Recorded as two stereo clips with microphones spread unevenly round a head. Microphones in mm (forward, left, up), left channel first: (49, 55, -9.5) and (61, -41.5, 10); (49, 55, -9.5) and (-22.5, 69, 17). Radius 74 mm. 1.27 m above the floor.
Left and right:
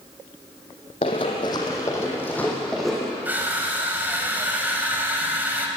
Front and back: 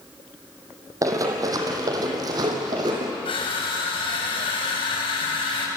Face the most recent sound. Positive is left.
turn(degrees=-15)